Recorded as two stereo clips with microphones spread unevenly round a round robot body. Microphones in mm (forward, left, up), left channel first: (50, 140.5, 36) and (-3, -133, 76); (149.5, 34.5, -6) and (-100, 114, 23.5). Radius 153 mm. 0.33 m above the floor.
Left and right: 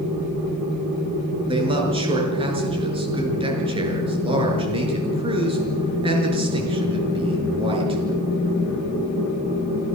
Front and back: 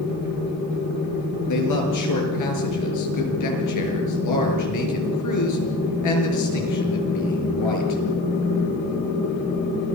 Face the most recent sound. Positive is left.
turn(degrees=-30)